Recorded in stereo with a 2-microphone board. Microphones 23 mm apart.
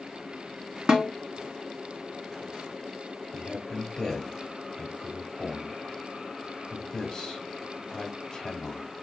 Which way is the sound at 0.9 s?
45° right (ahead or behind).